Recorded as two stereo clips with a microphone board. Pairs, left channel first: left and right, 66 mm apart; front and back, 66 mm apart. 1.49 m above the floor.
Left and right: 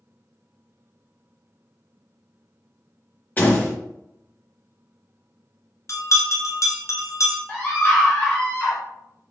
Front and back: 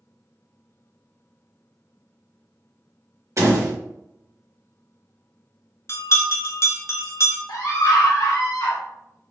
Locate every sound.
3.4 s a door slam: 150° left, 1.1 m
5.9 s a bell: 45° left, 0.7 m
7.5 s a scream: 20° left, 0.9 m